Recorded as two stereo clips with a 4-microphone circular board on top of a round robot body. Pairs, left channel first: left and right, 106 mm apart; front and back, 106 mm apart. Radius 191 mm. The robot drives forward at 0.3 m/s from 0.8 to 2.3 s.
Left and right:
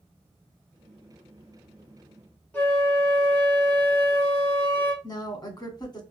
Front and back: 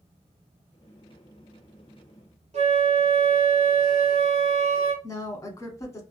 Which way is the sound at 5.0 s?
55° left.